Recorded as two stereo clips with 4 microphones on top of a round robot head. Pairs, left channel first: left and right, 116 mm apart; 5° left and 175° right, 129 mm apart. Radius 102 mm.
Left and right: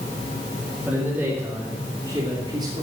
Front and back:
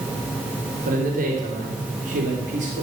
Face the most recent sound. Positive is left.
turn(degrees=-145)